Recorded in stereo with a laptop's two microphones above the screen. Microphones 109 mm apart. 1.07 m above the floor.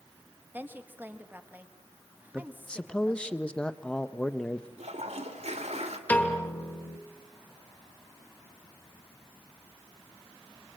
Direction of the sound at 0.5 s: 15° right (ahead or behind).